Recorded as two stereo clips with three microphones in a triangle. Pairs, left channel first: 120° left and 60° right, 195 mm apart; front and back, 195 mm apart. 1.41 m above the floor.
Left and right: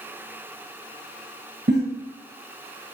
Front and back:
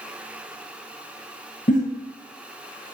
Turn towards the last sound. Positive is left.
turn(degrees=-45)